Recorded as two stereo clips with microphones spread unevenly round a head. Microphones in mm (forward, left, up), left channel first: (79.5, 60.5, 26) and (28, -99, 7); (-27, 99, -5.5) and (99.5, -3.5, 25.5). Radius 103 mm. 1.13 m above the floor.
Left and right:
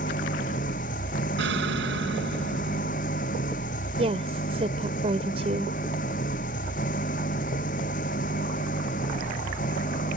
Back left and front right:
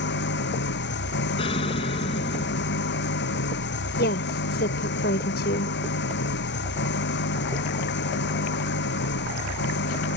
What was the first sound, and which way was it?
An engine running, 130° left.